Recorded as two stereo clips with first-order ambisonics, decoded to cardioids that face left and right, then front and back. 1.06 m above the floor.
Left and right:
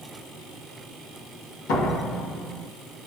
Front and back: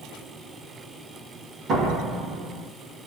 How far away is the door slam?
About 2 m.